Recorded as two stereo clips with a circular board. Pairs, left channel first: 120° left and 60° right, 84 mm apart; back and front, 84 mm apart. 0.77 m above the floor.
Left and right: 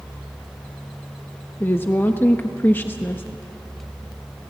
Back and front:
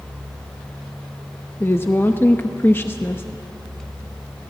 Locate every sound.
1.6 s a woman speaking: 155° left, 0.9 m